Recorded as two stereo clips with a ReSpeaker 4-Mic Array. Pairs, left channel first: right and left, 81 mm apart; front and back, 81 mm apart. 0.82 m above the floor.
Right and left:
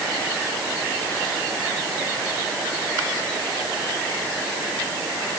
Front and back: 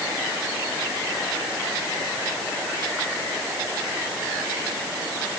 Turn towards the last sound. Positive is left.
No sound to turn to.